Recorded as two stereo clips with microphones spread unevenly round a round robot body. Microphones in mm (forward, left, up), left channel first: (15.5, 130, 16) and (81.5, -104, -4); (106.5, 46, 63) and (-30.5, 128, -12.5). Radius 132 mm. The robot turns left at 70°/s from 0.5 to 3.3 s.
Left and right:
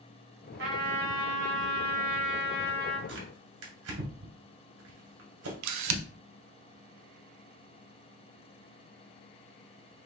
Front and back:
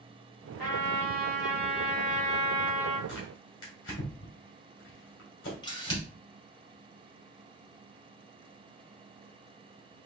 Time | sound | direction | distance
0.6 | a trumpet | 130° right | 2.5 m
3.1 | tearing paper | 30° right | 1.9 m
5.6 | a camera shutter | 105° right | 0.5 m